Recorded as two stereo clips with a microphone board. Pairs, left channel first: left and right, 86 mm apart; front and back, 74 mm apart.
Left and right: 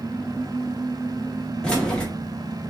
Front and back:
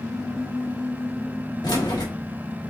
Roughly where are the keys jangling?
Ahead.